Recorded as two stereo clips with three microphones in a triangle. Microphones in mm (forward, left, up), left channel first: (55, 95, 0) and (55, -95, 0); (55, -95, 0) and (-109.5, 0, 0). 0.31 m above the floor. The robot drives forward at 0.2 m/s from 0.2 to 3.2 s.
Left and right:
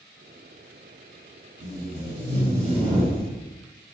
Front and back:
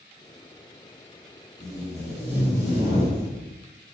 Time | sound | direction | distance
1.6 | tape being pulled | 135° right | 1.8 m